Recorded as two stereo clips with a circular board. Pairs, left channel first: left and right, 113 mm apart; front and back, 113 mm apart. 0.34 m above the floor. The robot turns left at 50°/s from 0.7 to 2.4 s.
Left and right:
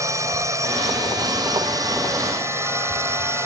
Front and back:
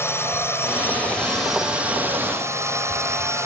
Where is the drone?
50° right; by 3.5 s 135° right.